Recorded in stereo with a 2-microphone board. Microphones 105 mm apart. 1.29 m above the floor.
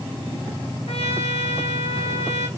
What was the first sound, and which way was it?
A trumpet, 80° left.